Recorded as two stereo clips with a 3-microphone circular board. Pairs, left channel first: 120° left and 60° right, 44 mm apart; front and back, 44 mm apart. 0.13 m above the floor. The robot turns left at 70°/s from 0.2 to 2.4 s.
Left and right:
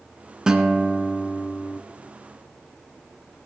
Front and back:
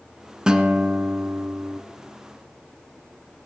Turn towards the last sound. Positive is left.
turn(degrees=100)